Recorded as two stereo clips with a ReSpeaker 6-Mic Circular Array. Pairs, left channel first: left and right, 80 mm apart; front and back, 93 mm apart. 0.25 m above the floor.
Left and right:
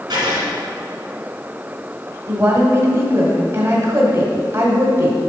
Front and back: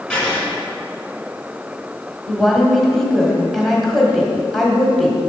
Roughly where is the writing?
Right.